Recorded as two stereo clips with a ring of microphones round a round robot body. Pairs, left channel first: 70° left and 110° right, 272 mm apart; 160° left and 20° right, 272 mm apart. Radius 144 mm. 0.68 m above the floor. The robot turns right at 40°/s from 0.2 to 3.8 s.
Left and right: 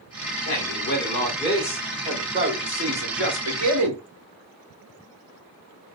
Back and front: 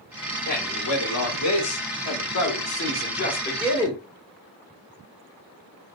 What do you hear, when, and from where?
0.5 s a man speaking: 100° left, 2 m; by 4.0 s 130° right, 2 m